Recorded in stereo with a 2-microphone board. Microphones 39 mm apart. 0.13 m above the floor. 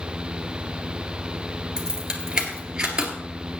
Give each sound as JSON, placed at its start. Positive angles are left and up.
{"t": 1.8, "sound": "keys jangling", "side_deg": -20, "distance_m": 1.8}